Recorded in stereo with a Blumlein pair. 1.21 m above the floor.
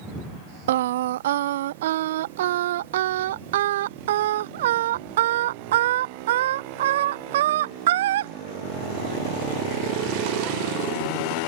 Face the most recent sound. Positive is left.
turn(degrees=-55)